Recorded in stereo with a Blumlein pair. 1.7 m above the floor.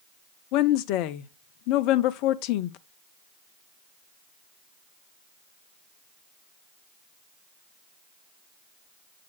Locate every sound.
0.5 s a woman speaking: 40° left, 0.6 m